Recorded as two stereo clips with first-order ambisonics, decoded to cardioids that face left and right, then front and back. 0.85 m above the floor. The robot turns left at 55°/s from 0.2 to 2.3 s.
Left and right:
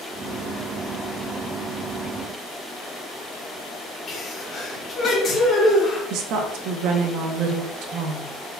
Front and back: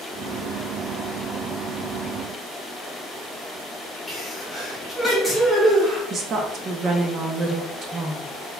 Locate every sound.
4.1 s a sneeze: 70° left, 1.0 m
6.1 s a woman speaking: 120° right, 0.7 m